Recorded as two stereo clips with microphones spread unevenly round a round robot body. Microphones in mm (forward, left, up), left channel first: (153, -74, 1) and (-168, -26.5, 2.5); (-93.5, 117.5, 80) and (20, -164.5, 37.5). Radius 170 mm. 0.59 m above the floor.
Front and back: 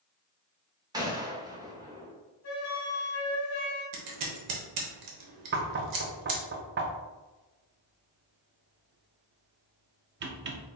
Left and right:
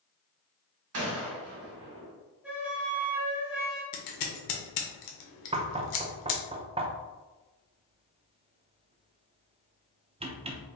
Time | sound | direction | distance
0.9 | a gunshot | 110° right | 0.9 m
2.4 | a flute | 10° left | 1.0 m
3.9 | scissors | 135° left | 0.8 m
5.5 | knocking | 135° right | 0.5 m